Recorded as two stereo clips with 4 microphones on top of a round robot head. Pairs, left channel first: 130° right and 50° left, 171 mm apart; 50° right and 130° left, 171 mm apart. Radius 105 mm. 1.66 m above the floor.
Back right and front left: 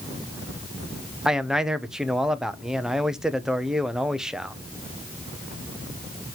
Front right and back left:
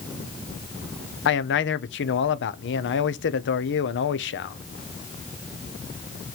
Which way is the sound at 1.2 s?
40° right.